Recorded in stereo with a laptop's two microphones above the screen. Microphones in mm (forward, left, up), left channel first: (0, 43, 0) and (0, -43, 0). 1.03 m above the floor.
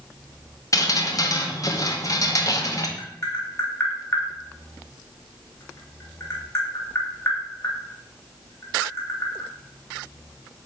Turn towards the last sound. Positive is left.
turn(degrees=30)  # may be behind; listen again after turning